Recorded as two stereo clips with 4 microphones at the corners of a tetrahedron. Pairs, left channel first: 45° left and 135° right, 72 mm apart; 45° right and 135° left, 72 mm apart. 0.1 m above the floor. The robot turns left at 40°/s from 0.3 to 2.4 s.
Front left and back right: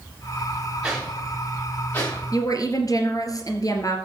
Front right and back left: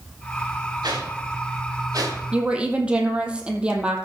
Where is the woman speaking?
65° left, 2.5 m.